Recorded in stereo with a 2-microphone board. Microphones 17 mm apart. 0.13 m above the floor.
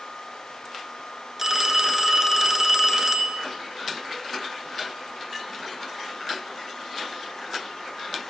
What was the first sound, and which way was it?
A phone ringing, 20° right (ahead or behind).